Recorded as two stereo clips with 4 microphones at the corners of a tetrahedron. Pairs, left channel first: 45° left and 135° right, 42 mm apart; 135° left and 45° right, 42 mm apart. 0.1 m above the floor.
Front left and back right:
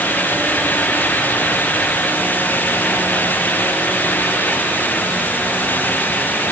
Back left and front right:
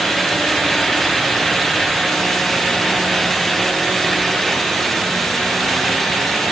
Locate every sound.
Only background noise.